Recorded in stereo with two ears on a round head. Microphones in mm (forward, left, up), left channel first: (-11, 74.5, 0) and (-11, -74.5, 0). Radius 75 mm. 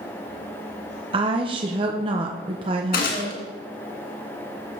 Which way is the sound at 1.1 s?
30° right (ahead or behind).